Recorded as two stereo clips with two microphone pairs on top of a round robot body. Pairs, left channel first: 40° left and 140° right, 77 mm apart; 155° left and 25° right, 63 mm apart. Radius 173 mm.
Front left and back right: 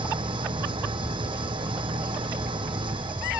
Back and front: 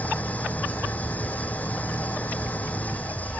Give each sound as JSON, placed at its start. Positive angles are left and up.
{"t": 0.0, "sound": "an engine running", "azimuth_deg": -140}